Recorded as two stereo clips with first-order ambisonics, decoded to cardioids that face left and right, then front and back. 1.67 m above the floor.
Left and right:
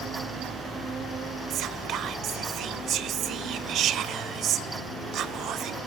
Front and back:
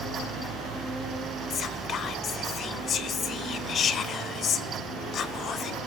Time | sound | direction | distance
1.5 | whispering | 50° right | 0.9 m